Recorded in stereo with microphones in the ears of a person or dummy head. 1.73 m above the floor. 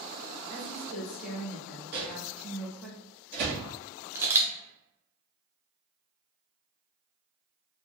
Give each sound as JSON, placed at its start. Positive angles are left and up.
{"t": 0.5, "sound": "a woman speaking", "side_deg": 5, "distance_m": 1.1}
{"t": 1.9, "sound": "a microwave", "side_deg": -45, "distance_m": 1.3}
{"t": 4.2, "sound": "a camera shutter", "side_deg": -15, "distance_m": 0.6}